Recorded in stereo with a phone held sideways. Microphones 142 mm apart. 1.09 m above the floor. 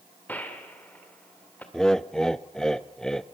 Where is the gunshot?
10° left (ahead or behind), 2 m.